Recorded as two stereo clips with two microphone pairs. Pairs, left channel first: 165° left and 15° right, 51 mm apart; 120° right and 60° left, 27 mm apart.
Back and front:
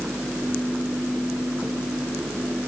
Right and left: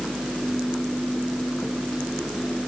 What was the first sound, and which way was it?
Only background noise.